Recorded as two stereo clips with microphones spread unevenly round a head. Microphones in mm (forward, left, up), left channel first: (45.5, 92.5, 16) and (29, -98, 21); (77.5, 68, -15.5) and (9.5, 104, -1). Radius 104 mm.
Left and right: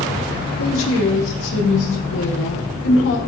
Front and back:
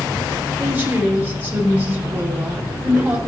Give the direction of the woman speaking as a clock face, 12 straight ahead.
9 o'clock.